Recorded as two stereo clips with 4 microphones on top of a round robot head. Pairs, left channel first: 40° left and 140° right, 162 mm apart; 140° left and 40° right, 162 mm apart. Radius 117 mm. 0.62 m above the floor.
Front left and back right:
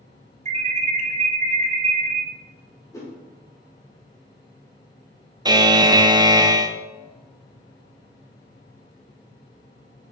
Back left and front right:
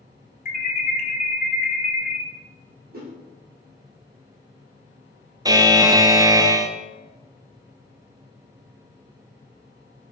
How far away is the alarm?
About 1.1 m.